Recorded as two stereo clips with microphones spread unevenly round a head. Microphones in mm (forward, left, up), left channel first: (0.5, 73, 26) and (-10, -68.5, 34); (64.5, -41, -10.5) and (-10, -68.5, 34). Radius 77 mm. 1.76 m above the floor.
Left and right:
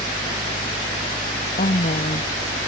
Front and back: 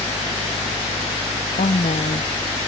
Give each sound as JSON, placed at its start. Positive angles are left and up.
{"t": 0.0, "sound": "a fan", "azimuth_deg": 20}
{"t": 1.6, "sound": "a woman speaking", "azimuth_deg": 40}